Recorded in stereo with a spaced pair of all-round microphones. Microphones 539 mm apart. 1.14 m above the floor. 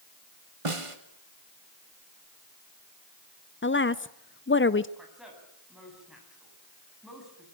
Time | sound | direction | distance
0.7 | a snare drum | 70° right (ahead or behind) | 1.8 m
3.6 | a woman speaking | 25° left (ahead or behind) | 0.6 m
5.0 | a woman speaking | centre (ahead or behind) | 9 m